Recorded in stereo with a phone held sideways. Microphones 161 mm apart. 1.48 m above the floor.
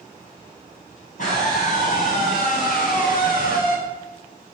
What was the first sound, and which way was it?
A scream, 55° left (ahead or behind).